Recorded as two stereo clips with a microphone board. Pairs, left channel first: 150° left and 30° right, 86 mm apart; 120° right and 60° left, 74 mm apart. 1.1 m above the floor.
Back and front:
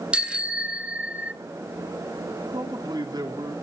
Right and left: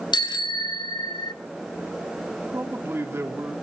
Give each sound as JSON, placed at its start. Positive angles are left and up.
{"t": 0.1, "sound": "a bicycle bell", "azimuth_deg": -110, "distance_m": 2.5}
{"t": 2.5, "sound": "a man speaking", "azimuth_deg": 5, "distance_m": 3.0}